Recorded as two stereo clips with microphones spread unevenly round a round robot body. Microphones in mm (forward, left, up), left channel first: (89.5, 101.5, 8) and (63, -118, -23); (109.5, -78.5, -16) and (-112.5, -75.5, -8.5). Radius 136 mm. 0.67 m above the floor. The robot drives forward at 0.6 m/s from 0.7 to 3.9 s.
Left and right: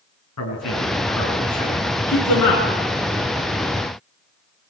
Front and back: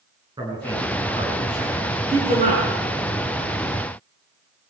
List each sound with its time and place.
0.4 s a man speaking: 105° left, 7 m; by 2.6 s 115° left, 7 m